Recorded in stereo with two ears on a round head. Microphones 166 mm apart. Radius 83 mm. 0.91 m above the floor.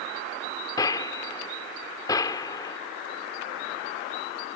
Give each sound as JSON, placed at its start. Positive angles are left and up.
{"t": 0.8, "sound": "a gunshot", "side_deg": 20}